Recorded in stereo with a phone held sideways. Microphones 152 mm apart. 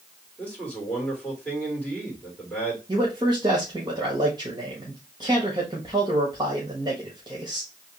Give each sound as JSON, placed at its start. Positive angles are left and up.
{"t": 0.4, "sound": "a man speaking", "side_deg": 5, "distance_m": 2.5}
{"t": 2.9, "sound": "a man speaking", "side_deg": -30, "distance_m": 1.4}